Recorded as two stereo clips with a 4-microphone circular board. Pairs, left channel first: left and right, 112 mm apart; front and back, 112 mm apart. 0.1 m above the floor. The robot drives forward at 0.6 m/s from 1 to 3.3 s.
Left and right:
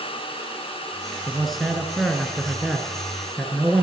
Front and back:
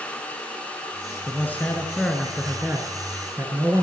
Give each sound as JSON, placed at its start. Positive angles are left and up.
{"t": 1.3, "sound": "a man speaking", "azimuth_deg": 0, "distance_m": 1.5}